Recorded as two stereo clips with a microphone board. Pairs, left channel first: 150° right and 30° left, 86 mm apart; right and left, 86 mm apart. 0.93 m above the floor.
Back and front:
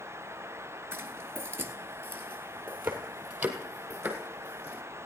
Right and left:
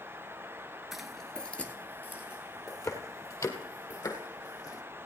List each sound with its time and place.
0.9 s footsteps: 5° left, 1.0 m; by 4.8 s 45° right, 3 m